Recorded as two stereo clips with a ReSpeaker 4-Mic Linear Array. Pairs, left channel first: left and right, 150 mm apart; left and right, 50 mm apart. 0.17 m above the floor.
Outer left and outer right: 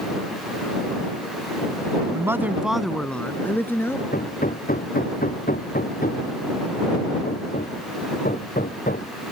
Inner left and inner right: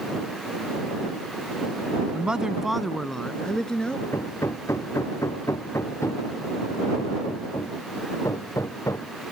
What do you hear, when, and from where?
2.1 s a man speaking: 20° right (ahead or behind); by 4.0 s 15° left (ahead or behind)
4.1 s hammering: 75° left (ahead or behind)